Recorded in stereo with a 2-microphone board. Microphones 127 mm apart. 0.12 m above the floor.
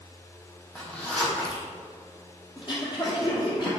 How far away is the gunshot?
No gunshot in this recording.